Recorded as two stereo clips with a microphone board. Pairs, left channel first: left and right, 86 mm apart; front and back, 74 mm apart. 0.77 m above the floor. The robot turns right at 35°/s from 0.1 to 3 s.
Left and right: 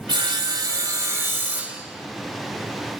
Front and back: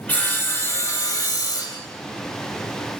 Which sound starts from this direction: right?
Sawing, at 0.1 s.